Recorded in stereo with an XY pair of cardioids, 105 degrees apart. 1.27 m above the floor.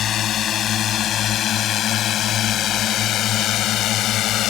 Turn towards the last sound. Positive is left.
turn(degrees=80)